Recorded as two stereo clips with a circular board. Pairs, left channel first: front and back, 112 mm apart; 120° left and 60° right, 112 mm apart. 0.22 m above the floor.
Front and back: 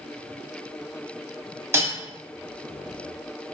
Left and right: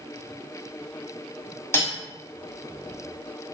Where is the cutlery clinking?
150° left, 0.8 m.